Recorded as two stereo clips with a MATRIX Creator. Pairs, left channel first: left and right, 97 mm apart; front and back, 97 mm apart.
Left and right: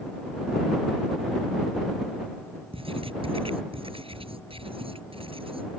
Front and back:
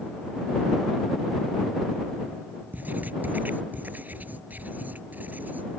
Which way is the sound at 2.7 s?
110° right.